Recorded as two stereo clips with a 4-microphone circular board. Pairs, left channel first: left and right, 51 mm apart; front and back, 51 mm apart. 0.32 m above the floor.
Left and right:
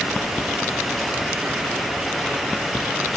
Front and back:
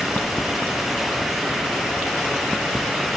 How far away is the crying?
I don't hear crying.